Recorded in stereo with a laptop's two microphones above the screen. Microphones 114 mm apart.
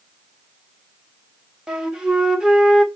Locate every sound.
1.7 s a flute: 5° right (ahead or behind), 1.2 m